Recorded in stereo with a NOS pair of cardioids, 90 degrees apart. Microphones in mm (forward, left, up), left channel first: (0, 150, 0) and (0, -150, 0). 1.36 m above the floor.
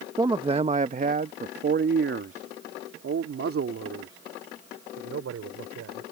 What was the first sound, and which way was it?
A man speaking, 10° right.